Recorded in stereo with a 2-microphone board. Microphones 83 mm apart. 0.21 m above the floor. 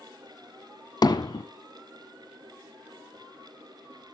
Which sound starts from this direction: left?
Hammering, at 1.0 s.